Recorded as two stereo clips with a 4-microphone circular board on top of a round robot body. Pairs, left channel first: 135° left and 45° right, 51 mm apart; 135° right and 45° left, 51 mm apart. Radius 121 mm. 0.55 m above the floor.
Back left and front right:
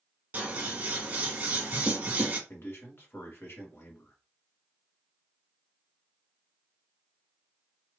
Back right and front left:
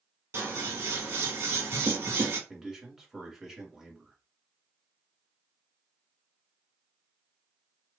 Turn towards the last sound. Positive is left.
turn(degrees=125)